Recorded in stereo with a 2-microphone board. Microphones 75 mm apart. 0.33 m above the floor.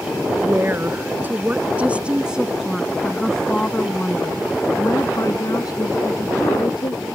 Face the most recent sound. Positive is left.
turn(degrees=70)  # may be behind; listen again after turning